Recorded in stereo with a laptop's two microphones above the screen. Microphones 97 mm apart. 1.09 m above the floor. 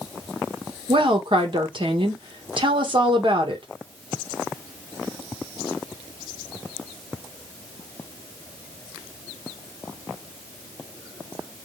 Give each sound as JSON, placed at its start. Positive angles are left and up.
{"t": 0.9, "sound": "a woman speaking", "side_deg": -60, "distance_m": 1.4}